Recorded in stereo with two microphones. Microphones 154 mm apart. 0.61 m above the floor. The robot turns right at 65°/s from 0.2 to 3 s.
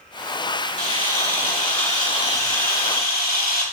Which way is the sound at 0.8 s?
55° right.